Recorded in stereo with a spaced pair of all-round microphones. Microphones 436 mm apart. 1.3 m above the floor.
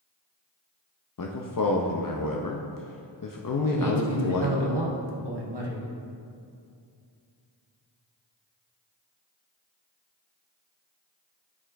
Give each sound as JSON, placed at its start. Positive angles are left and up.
{"t": 1.2, "sound": "a man speaking", "side_deg": 50, "distance_m": 0.5}
{"t": 3.7, "sound": "a man speaking", "side_deg": -65, "distance_m": 1.1}